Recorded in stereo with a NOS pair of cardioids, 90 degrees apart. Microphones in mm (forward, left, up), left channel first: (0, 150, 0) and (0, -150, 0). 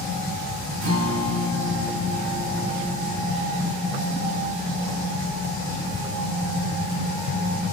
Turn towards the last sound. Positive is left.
turn(degrees=-70)